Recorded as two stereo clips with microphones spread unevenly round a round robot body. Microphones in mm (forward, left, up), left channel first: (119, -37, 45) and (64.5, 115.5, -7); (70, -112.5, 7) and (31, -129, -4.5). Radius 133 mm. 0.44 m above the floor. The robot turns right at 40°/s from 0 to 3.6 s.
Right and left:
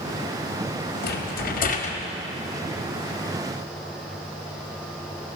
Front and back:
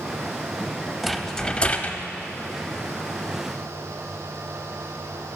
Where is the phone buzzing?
I don't hear a phone buzzing.